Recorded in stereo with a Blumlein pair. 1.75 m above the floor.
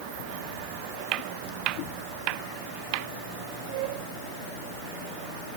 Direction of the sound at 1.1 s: 35° right.